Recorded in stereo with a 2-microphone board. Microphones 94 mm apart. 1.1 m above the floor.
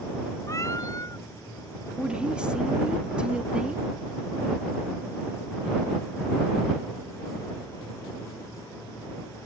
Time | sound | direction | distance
0.5 | a cat meowing | 35° left (ahead or behind) | ?
2.0 | a woman speaking | 10° right (ahead or behind) | ?